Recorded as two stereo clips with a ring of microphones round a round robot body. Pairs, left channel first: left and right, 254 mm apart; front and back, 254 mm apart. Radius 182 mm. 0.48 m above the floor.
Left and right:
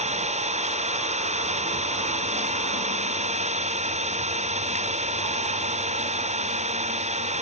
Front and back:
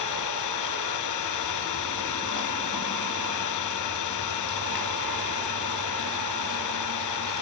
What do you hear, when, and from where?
0.0 s an engine running: 25° right